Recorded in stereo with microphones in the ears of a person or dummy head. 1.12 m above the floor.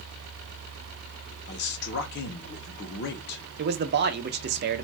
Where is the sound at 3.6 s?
55° right (ahead or behind), 0.5 m.